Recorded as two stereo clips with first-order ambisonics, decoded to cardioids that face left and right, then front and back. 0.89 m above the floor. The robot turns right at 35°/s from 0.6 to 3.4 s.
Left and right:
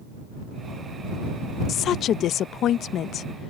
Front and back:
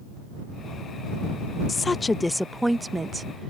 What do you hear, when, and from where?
1.7 s a woman speaking: 65° left; by 3.5 s 125° left